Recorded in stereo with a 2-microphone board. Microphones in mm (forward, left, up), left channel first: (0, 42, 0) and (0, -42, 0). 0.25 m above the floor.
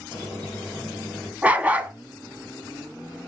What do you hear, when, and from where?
0.1 s a squeak: 35° right (ahead or behind), 4 m
1.4 s a dog barking: 20° right (ahead or behind), 0.5 m